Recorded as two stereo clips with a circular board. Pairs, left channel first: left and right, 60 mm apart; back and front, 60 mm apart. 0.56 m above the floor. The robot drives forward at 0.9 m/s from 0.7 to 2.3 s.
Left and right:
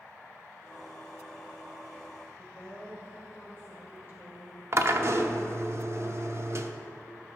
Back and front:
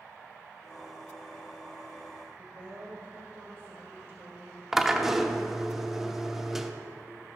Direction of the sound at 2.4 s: 40° right.